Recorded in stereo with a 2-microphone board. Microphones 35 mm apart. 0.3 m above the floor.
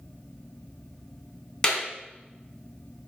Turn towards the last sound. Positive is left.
turn(degrees=20)  # may be behind; listen again after turning